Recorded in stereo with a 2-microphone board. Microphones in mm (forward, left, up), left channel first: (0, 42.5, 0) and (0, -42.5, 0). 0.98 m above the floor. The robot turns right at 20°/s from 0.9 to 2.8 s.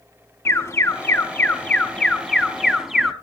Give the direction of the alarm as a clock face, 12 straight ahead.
7 o'clock.